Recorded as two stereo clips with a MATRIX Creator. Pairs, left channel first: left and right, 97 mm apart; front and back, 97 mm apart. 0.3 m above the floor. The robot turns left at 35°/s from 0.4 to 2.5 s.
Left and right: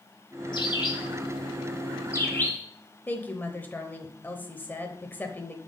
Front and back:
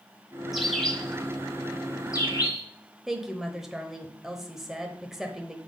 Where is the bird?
95° left, 1.3 m; by 2.6 s 25° left, 1.3 m.